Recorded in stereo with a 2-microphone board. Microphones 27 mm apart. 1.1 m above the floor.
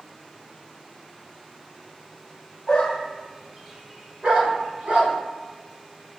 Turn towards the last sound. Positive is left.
turn(degrees=-55)  # may be behind; listen again after turning